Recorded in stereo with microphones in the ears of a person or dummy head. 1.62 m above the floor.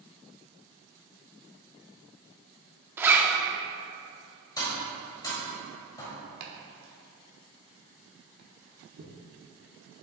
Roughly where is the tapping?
Left.